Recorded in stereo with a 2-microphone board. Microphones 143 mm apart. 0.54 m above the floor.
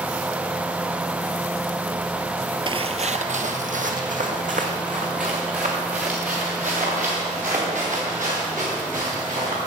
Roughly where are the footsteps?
Right.